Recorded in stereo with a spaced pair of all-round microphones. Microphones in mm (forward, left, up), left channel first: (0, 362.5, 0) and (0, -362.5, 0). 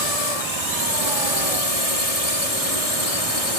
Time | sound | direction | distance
0.0 | a drone | 60° left (ahead or behind) | ?